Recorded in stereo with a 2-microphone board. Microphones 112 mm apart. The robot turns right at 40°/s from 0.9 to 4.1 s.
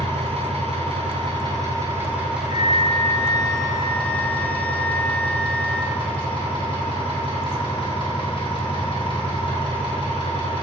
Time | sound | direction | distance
0.0 | an engine running | 70° right | 2.5 m
2.5 | a flute | 95° left | 0.5 m